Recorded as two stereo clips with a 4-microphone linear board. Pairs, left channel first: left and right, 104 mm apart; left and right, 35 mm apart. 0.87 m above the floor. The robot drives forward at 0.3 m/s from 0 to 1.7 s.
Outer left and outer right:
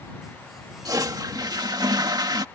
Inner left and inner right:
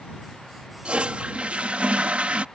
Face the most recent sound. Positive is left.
turn(degrees=-40)  # may be behind; listen again after turning